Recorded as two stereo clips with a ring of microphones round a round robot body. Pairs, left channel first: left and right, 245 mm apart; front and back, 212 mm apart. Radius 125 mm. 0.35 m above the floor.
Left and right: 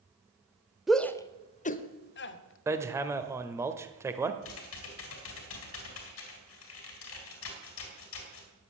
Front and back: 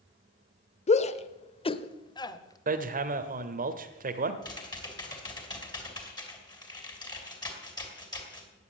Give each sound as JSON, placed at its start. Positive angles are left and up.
{"t": 0.9, "sound": "a shout", "azimuth_deg": -5, "distance_m": 0.9}
{"t": 2.7, "sound": "hammering", "azimuth_deg": -165, "distance_m": 1.2}
{"t": 4.4, "sound": "typing on a keyboard", "azimuth_deg": 70, "distance_m": 3.5}